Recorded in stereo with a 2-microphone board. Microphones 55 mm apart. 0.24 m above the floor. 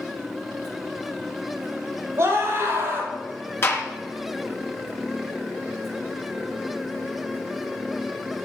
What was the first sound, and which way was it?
A scream, 45° right (ahead or behind).